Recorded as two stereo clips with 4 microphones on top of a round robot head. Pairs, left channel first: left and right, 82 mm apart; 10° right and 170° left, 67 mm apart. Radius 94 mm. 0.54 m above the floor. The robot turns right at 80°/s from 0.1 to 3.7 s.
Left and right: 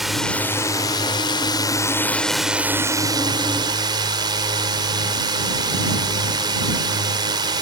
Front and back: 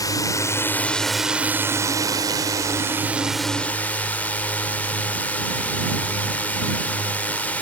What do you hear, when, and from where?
0.0 s a drone: straight ahead; by 7.6 s 75° right